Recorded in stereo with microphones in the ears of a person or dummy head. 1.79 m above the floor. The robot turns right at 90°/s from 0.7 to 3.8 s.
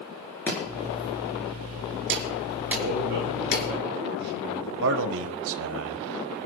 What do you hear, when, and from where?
0.5 s chopping: 5° left (ahead or behind), 4.5 m; by 3.7 s 80° left, 4.5 m
2.8 s a man speaking: 150° right, 4 m; by 4.7 s 55° right, 4 m
4.8 s a man speaking: 70° right (ahead or behind), 1.1 m